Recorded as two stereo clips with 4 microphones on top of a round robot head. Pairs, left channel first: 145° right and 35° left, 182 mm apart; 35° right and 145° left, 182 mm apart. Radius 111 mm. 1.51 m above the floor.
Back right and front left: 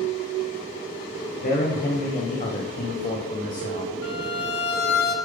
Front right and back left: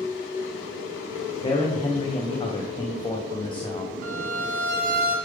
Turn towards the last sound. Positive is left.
turn(degrees=-175)